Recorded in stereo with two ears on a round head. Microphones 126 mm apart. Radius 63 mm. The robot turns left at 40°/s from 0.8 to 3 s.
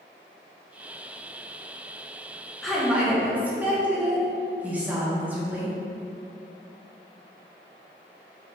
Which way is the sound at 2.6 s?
5° left (ahead or behind).